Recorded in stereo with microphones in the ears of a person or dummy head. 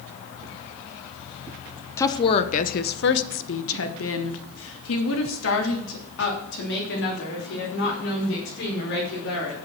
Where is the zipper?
I don't hear a zipper.